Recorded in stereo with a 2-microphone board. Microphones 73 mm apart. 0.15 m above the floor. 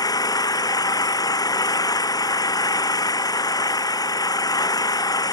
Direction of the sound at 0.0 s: 60° left (ahead or behind).